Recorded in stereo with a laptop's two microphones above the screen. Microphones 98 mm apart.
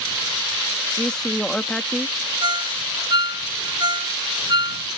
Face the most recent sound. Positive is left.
turn(degrees=-50)  # may be behind; listen again after turning